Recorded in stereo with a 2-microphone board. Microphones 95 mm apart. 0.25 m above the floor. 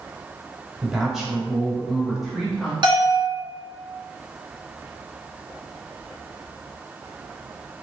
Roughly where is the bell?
Right.